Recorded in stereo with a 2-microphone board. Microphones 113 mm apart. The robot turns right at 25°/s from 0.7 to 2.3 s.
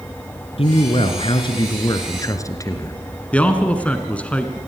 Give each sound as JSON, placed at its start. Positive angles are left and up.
{"t": 0.6, "sound": "a man speaking", "azimuth_deg": 105, "distance_m": 2.5}
{"t": 3.3, "sound": "a man speaking", "side_deg": 10, "distance_m": 1.9}